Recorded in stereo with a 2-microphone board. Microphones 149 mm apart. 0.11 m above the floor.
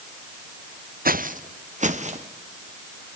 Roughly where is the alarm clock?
No alarm clock in this recording.